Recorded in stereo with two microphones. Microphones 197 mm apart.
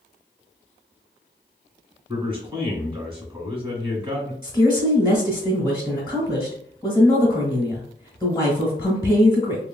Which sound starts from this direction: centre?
A woman speaking, at 4.4 s.